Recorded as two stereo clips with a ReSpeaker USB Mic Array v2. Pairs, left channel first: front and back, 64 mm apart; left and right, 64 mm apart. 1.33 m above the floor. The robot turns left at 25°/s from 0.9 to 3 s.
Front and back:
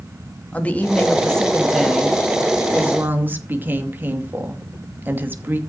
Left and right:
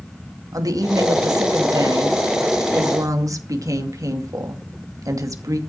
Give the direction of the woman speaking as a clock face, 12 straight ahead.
2 o'clock.